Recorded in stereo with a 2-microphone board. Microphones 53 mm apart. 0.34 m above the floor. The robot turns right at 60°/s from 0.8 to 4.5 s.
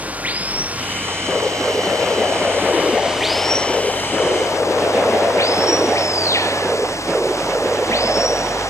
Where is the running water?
150° right; by 8.7 s 70° left.